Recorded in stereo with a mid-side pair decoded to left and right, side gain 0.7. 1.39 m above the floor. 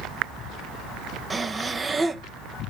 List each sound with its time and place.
1.3 s breathing: 20° right, 0.7 m